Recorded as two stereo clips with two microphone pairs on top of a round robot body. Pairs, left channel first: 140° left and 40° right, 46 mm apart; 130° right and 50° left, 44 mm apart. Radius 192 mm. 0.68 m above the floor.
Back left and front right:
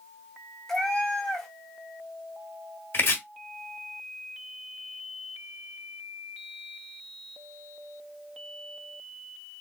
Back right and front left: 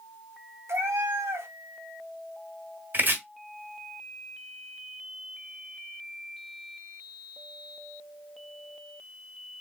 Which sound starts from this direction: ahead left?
A cat meowing, at 0.7 s.